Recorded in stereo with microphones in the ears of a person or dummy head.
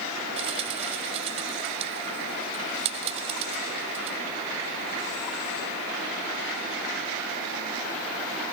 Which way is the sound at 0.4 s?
35° right (ahead or behind).